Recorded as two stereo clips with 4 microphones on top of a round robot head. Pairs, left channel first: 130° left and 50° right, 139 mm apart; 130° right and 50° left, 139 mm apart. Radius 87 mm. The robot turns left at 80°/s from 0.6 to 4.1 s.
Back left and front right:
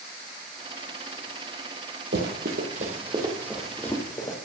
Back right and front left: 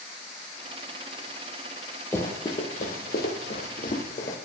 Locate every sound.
2.1 s running footsteps: 50° right, 2 m; by 4.4 s 165° right, 3 m